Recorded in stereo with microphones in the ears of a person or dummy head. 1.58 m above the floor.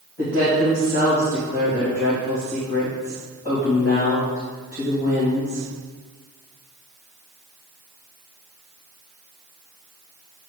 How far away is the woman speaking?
About 3 m.